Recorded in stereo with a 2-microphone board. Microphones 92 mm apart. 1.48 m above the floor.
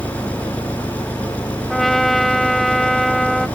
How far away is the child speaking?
No child speaking in this recording.